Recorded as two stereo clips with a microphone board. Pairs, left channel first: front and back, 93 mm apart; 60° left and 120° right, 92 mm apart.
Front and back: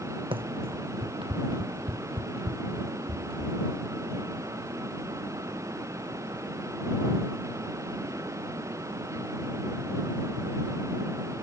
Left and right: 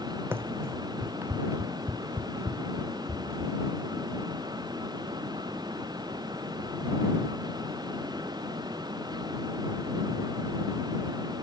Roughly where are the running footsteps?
Behind.